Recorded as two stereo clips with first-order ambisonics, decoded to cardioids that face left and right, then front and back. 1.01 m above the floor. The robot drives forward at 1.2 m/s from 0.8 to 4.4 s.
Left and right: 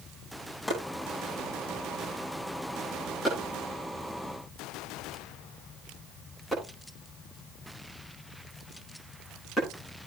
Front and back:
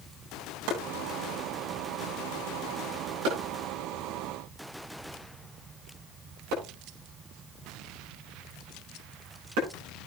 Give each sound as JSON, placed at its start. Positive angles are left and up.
{"t": 0.7, "sound": "chopping", "azimuth_deg": 170, "distance_m": 8.0}